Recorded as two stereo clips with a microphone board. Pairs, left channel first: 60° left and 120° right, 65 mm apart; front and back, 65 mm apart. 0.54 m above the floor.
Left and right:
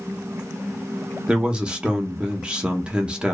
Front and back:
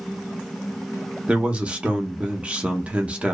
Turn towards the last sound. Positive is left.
turn(degrees=-165)